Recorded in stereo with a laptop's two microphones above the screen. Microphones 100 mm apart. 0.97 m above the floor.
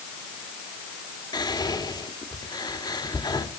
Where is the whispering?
45° left (ahead or behind), 2 m.